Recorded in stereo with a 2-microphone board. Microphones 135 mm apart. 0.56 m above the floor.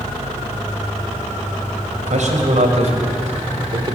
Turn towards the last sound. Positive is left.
turn(degrees=-35)  # may be behind; listen again after turning